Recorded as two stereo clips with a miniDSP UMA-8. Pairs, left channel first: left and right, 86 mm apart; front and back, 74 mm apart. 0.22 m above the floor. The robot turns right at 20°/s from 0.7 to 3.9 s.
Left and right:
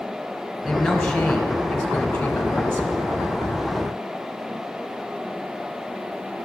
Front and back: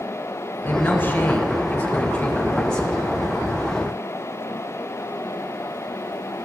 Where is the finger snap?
I don't hear a finger snap.